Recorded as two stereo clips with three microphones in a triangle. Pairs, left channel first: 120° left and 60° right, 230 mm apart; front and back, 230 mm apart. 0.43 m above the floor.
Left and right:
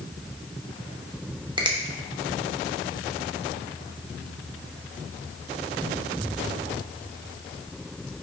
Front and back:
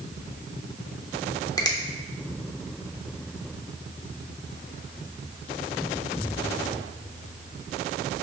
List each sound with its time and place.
1.6 s a finger snap: 40° right, 0.5 m